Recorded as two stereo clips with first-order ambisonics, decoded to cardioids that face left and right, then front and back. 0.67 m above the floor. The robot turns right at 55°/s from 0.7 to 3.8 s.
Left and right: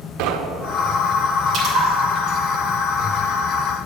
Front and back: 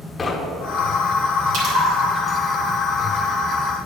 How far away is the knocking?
About 0.8 m.